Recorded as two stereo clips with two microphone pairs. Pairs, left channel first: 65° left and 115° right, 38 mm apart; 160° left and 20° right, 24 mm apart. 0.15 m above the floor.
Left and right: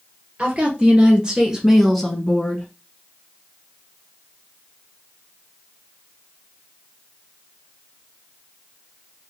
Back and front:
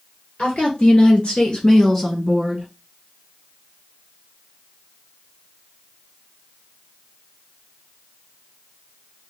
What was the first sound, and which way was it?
A woman speaking, 175° right.